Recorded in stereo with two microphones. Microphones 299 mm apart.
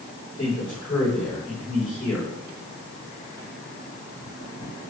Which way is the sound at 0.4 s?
45° left (ahead or behind).